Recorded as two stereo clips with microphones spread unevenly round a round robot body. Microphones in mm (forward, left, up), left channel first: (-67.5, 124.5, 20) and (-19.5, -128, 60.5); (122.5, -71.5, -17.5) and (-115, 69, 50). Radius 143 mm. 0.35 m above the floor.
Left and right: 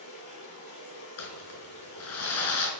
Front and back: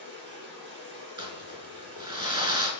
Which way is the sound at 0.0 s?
100° left.